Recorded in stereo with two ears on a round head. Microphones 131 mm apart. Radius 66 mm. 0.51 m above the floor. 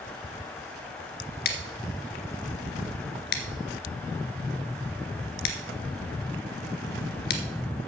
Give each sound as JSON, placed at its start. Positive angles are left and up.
{"t": 1.4, "sound": "scissors", "side_deg": 75, "distance_m": 1.8}